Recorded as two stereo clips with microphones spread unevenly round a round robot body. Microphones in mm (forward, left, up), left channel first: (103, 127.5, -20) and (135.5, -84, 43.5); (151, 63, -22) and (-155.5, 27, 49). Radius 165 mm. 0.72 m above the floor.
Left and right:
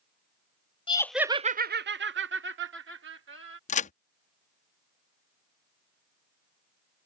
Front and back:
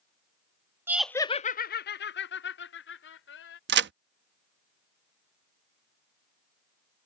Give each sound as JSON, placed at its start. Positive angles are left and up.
{"t": 0.9, "sound": "laughter", "azimuth_deg": 90}
{"t": 3.7, "sound": "a crack", "azimuth_deg": 125}